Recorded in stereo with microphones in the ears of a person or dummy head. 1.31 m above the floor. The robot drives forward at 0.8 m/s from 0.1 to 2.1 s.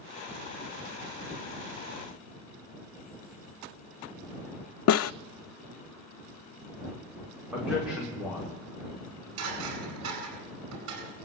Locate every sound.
4.9 s a snare drum: 80° left, 0.5 m
7.5 s a man speaking: 10° right (ahead or behind), 4.5 m
8.9 s dishes clattering: 75° right (ahead or behind), 9.5 m